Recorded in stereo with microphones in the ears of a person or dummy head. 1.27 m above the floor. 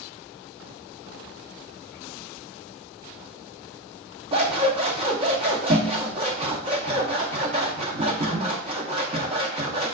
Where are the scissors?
25° right (ahead or behind), 0.6 m.